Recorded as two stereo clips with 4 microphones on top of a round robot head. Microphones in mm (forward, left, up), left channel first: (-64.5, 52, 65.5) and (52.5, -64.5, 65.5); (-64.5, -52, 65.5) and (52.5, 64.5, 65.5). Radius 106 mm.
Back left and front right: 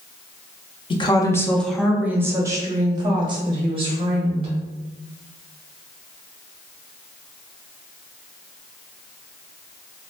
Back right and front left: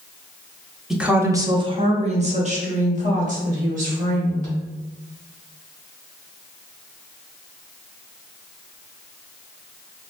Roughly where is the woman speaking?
Behind left.